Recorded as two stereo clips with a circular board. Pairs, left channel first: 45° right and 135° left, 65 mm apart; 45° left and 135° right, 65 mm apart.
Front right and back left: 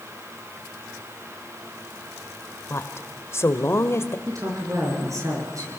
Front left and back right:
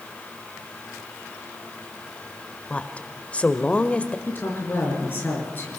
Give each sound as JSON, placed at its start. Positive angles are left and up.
{"t": 2.7, "sound": "a woman speaking", "azimuth_deg": -20, "distance_m": 1.4}
{"t": 4.3, "sound": "a woman speaking", "azimuth_deg": 100, "distance_m": 6.5}